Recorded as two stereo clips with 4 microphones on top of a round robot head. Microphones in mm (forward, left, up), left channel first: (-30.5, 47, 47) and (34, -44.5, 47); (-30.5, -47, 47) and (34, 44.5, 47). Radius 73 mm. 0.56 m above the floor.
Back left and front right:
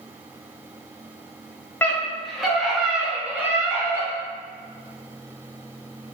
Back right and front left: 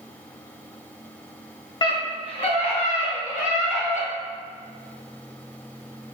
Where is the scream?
165° right, 1.2 m; by 4.1 s 120° right, 2.5 m.